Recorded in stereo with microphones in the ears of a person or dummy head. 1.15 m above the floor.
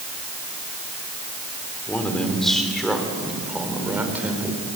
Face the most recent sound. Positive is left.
turn(degrees=-5)  # may be behind; listen again after turning